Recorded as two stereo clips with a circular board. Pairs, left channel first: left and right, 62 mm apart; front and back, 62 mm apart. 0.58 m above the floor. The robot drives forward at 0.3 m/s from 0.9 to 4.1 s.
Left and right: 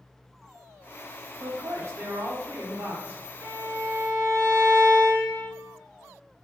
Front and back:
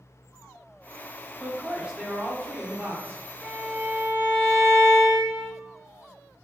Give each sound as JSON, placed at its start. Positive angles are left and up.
{"t": 1.4, "sound": "a man speaking", "azimuth_deg": -100, "distance_m": 0.7}
{"t": 3.4, "sound": "a violin", "azimuth_deg": -115, "distance_m": 1.6}